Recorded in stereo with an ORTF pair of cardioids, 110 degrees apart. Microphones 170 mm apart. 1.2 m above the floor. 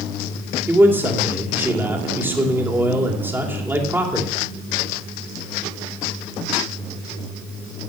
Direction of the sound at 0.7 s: 15° right.